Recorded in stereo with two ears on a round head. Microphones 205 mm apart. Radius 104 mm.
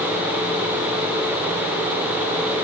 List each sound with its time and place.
Only background noise.